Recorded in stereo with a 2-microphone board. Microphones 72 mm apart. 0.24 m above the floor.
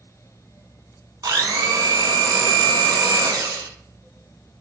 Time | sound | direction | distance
1.2 | a blender | 70° right (ahead or behind) | 0.8 m